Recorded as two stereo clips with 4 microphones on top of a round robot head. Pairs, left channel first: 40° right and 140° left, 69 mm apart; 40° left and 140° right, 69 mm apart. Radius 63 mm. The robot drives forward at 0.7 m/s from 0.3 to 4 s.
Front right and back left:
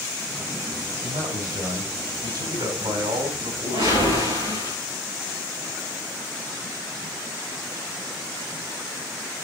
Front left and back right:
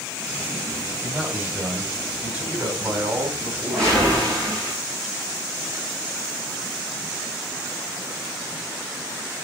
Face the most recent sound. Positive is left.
turn(degrees=130)